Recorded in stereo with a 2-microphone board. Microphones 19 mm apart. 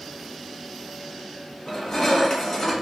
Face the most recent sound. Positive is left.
turn(degrees=35)  # may be behind; listen again after turning